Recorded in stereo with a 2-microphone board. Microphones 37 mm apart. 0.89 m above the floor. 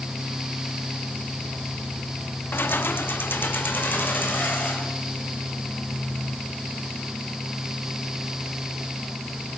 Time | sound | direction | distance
2.5 | keys jangling | 80° left | 0.8 m